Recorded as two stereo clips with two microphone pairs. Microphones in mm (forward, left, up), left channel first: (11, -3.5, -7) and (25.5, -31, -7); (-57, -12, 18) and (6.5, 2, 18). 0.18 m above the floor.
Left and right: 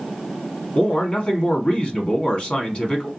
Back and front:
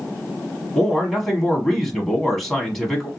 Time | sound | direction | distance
0.8 | a man speaking | 110° left | 1.3 m